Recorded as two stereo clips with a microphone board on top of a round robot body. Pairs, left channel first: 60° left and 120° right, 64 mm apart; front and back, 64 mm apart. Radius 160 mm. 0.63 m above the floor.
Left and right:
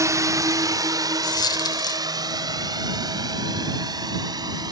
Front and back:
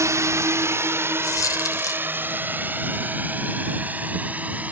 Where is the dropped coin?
40° left.